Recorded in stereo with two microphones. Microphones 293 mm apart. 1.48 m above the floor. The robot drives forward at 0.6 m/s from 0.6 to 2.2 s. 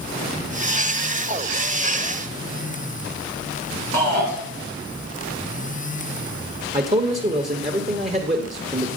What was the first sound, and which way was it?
A shout, 80° left.